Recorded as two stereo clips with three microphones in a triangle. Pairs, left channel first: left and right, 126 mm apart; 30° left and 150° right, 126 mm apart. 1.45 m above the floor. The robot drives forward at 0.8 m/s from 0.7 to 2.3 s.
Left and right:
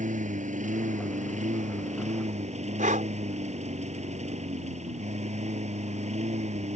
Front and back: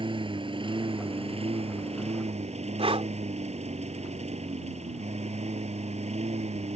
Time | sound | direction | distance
0.0 | a lawn mower | 105° right | ?
2.8 | breathing | 105° right | ?